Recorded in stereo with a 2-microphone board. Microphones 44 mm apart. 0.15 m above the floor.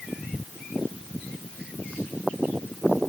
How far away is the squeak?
I don't hear a squeak.